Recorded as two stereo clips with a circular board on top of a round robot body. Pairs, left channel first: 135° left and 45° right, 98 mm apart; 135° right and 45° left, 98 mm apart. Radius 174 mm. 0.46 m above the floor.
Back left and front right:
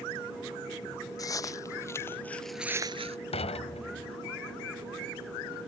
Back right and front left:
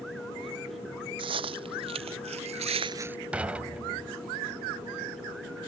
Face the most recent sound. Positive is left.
turn(degrees=125)